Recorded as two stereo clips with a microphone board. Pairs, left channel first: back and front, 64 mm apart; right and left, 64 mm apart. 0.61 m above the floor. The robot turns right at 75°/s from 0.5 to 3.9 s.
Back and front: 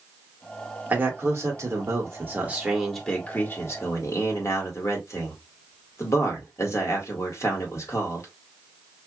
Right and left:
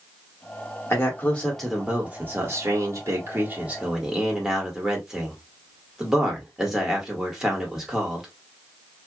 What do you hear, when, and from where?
0.9 s a man speaking: 55° right, 1.8 m; by 8.3 s 170° left, 1.8 m